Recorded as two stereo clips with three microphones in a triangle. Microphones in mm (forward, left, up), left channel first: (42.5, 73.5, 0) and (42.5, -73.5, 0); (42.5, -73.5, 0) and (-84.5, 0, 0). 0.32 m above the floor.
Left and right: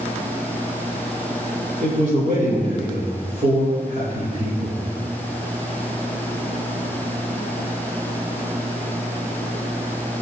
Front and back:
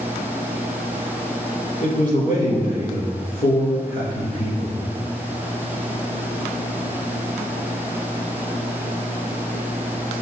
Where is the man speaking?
50° right, 5.5 m.